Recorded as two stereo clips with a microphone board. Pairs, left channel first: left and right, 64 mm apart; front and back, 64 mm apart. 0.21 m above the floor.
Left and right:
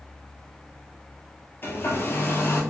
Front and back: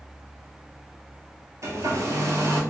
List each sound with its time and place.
1.6 s a hair dryer: 145° left, 0.8 m